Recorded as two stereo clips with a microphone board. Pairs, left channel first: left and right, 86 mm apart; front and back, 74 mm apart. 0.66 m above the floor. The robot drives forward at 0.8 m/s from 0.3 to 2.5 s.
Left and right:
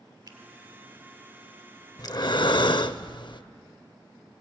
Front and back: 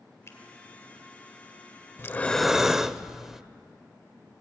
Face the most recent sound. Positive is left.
turn(degrees=95)